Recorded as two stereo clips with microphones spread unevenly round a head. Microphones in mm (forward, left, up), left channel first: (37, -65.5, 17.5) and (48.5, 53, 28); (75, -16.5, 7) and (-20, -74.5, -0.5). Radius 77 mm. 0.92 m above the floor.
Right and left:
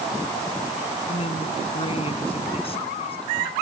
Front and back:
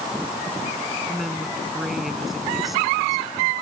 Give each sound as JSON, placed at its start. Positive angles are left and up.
{"t": 1.1, "sound": "a woman speaking", "azimuth_deg": -60}